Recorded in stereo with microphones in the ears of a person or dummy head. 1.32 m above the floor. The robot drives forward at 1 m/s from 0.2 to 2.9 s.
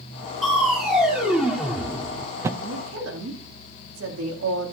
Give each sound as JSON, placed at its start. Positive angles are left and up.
{"t": 0.4, "sound": "crushing", "side_deg": -5, "distance_m": 2.5}
{"t": 2.6, "sound": "a woman speaking", "side_deg": -85, "distance_m": 2.0}